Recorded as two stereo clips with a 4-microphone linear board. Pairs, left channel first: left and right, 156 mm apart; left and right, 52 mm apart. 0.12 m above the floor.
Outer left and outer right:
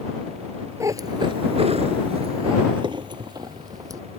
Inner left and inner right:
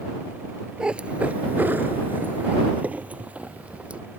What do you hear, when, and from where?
0.8 s a cat meowing: 20° right (ahead or behind)